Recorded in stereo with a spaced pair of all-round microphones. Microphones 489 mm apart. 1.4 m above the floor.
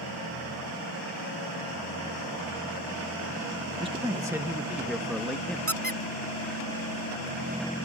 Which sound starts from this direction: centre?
A man speaking, at 3.8 s.